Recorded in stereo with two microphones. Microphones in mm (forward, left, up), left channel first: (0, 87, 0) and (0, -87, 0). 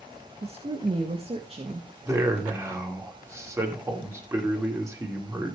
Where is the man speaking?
15° right (ahead or behind), 2.5 m.